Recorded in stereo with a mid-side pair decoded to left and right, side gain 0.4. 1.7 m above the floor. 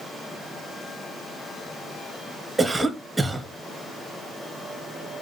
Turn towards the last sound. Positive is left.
turn(degrees=-20)